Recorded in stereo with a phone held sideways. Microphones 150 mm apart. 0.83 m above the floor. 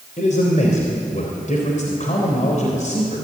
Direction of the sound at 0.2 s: 55° left (ahead or behind).